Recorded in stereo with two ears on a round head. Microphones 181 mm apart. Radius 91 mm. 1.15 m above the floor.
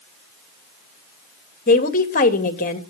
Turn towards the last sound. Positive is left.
turn(degrees=45)  # may be behind; listen again after turning